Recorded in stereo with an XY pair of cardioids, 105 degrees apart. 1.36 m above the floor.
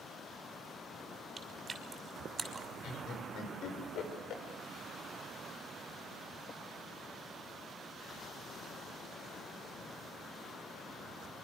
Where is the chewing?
30° right, 5.5 m.